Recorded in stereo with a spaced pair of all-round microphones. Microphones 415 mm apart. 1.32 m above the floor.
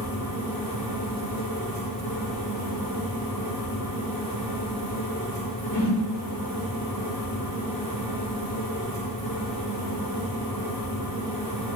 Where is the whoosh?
80° left, 3.5 m.